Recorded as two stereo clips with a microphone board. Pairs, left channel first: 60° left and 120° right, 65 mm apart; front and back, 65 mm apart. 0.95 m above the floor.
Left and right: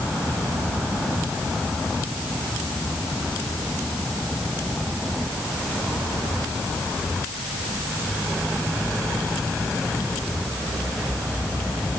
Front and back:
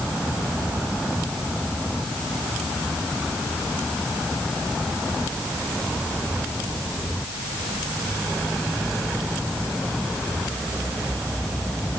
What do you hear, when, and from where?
Only background noise.